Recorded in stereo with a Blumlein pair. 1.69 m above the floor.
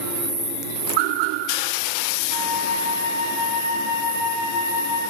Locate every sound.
2.3 s a flute: 65° right, 5 m